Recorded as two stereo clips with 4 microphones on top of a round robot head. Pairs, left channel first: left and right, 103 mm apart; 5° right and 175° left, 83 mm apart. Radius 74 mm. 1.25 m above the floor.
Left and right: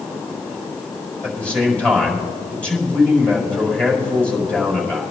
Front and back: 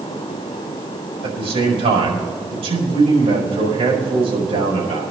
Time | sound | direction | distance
1.2 | a man speaking | 170° left | 5 m